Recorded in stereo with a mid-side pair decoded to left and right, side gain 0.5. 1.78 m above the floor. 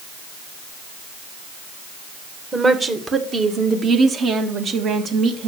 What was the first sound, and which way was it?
A woman speaking, 30° right.